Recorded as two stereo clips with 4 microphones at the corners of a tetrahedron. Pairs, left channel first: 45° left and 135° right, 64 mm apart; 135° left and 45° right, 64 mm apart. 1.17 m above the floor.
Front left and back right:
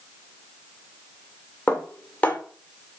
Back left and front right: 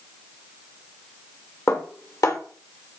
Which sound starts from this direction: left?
Dishes clattering, at 1.7 s.